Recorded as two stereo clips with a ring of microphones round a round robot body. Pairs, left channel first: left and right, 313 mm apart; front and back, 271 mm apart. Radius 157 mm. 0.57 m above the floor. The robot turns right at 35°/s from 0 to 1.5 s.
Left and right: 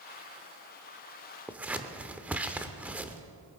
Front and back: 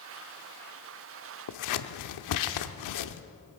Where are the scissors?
5° right, 0.7 m.